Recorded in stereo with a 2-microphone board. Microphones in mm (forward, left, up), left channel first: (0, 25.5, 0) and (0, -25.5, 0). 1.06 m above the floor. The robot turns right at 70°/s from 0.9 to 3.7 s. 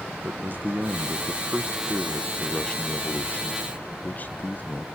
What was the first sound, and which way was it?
A man speaking, 90° right.